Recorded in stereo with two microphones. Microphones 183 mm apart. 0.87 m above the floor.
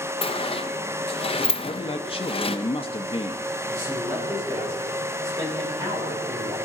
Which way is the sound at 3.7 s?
20° right (ahead or behind).